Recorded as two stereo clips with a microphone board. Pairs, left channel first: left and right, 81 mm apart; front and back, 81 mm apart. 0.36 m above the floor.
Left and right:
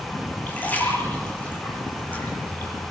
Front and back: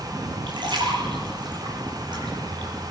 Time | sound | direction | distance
0.5 | a splash | 160° left | 9 m